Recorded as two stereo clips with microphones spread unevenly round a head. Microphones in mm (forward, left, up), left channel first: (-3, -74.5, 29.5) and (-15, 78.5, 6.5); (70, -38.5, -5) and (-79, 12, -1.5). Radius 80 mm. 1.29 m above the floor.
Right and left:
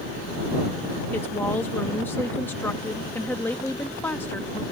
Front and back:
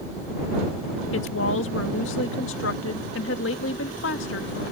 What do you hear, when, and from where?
1.1 s a woman speaking: 5° right